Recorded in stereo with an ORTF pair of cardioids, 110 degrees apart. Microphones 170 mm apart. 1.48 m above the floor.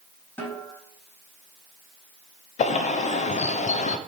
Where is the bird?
45° left, 0.6 m.